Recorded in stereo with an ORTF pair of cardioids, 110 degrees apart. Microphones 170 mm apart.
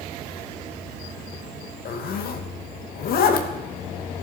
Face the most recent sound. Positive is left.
turn(degrees=65)